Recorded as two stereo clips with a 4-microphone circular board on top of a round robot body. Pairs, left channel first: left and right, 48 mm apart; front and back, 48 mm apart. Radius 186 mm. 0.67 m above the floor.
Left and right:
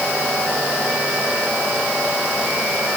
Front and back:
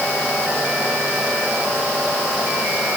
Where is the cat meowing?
I don't hear a cat meowing.